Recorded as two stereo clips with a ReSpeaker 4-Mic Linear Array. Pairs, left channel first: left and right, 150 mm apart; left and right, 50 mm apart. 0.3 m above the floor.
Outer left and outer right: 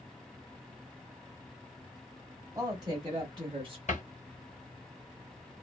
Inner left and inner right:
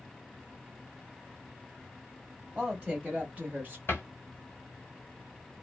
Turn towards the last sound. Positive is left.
turn(degrees=55)  # may be behind; listen again after turning